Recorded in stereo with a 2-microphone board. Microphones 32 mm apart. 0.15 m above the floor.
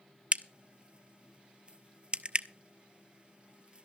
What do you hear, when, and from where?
0.3 s a crack: 40° right (ahead or behind), 0.7 m